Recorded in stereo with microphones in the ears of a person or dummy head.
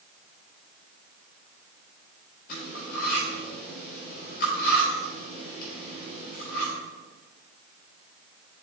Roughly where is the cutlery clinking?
Left.